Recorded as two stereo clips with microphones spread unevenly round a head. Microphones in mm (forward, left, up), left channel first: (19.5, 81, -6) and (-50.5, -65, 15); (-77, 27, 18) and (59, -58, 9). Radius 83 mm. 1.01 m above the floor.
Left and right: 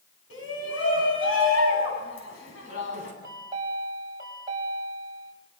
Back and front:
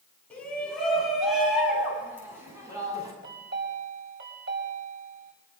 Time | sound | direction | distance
0.3 | a shout | 65° left | 9.5 m
3.2 | a chime | 45° right | 6 m